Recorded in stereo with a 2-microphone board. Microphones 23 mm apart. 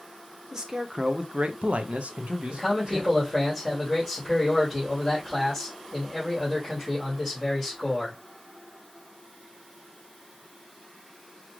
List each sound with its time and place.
0.5 s a man speaking: 20° right (ahead or behind), 0.8 m; by 3.1 s 45° right (ahead or behind), 1.1 m
2.5 s a man speaking: 5° left (ahead or behind), 2.5 m